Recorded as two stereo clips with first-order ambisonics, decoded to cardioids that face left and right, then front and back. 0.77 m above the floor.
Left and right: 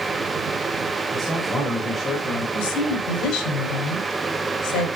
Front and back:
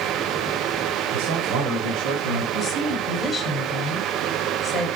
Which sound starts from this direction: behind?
A man speaking, at 1.1 s.